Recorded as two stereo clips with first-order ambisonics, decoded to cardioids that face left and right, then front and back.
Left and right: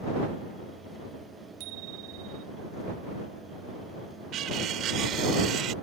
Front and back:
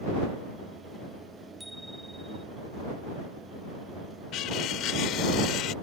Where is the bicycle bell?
90° right.